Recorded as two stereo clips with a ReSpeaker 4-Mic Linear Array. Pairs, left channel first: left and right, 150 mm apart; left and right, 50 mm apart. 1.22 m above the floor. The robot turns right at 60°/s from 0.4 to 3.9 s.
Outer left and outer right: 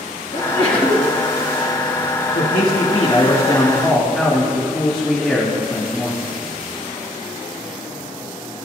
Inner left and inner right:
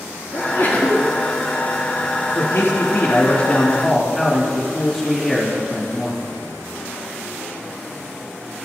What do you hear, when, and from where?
0.3 s a sneeze: 125° left, 2 m; by 1.1 s 170° left, 2 m
2.4 s a man speaking: 90° left, 2 m; by 6.2 s 175° right, 2 m